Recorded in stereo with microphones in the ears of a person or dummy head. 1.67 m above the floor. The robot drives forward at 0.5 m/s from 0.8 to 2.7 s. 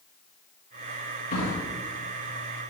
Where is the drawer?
50° left (ahead or behind), 1.4 m.